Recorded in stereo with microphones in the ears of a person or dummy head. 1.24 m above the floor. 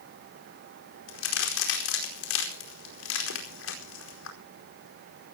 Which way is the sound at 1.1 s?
80° left.